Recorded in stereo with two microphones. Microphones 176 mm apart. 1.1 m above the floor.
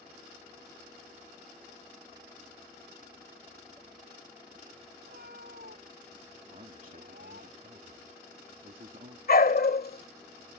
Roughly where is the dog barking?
Left.